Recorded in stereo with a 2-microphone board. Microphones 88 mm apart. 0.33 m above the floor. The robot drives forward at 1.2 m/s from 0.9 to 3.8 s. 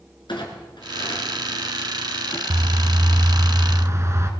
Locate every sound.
0.3 s a clunk: 60° left (ahead or behind), 3 m; by 2.4 s 75° left (ahead or behind), 3 m
2.5 s a bird: 70° right (ahead or behind), 1.0 m; by 4.3 s 35° right (ahead or behind), 1.7 m